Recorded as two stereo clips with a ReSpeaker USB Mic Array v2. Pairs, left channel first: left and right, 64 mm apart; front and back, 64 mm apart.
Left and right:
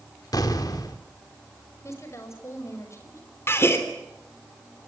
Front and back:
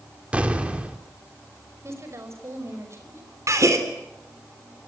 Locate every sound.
0.3 s an explosion: 110° left, 2 m
1.8 s a woman speaking: 135° left, 5.5 m
3.5 s a gasp: 145° left, 3 m